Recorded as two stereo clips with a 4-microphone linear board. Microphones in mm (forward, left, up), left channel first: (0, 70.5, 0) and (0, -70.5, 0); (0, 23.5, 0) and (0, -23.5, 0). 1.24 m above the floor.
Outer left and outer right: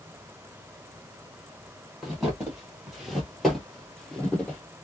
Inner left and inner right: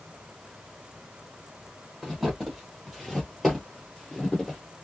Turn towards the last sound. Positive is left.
turn(degrees=10)  # may be behind; listen again after turning